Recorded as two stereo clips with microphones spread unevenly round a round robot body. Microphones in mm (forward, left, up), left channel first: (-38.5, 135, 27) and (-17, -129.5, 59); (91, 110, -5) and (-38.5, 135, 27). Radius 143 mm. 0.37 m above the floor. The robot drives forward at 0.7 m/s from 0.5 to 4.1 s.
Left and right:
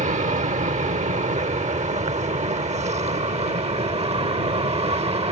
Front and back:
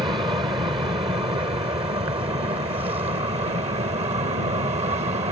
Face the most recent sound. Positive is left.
turn(degrees=-150)